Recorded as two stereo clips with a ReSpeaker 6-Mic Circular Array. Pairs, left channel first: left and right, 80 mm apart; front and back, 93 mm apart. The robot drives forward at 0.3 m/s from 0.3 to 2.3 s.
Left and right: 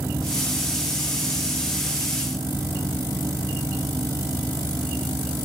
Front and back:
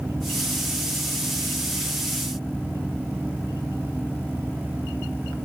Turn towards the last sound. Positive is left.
No sound to turn to.